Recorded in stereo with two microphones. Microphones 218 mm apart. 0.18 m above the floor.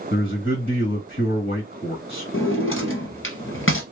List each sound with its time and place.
0.1 s a man speaking: 50° left (ahead or behind), 2 m
2.3 s a drawer: 70° left (ahead or behind), 1.1 m